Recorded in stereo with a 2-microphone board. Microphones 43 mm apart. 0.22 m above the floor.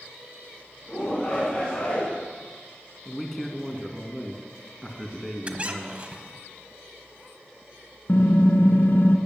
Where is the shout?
20° left (ahead or behind), 2 m.